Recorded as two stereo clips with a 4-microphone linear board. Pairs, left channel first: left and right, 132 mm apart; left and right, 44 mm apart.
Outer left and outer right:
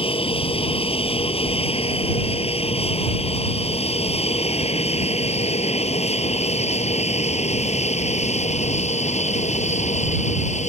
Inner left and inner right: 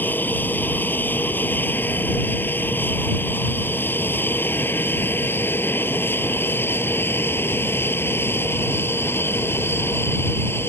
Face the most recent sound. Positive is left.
turn(degrees=60)  # may be behind; listen again after turning